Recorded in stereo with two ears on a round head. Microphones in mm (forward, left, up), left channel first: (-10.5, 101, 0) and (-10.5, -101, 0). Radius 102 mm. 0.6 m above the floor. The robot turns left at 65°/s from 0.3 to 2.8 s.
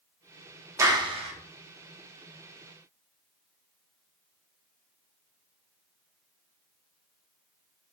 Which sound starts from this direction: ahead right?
A clap, at 0.8 s.